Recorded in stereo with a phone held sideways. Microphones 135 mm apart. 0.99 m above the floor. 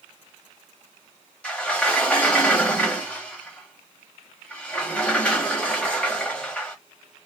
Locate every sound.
1.4 s a sliding door: 10° left (ahead or behind), 1.0 m